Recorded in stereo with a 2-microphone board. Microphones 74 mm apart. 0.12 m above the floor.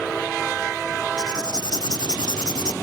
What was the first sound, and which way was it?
Writing, 65° left (ahead or behind).